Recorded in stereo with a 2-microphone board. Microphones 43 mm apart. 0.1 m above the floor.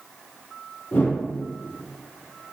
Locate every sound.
0.9 s a whoosh: 45° left (ahead or behind), 3 m